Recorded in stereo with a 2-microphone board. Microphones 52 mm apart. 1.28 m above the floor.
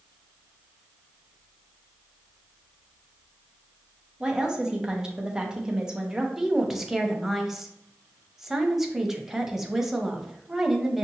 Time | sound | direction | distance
4.2 | a woman speaking | 15° right (ahead or behind) | 0.8 m
6.4 | a woman speaking | 5° right (ahead or behind) | 0.6 m